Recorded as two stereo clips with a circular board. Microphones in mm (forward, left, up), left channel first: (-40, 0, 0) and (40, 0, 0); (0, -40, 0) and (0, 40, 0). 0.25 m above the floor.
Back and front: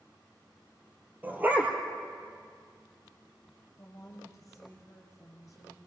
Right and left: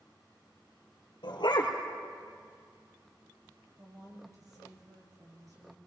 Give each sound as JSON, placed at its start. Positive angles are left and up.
{"t": 1.2, "sound": "a dog barking", "azimuth_deg": -70, "distance_m": 2.5}
{"t": 3.8, "sound": "a woman speaking", "azimuth_deg": 135, "distance_m": 5.0}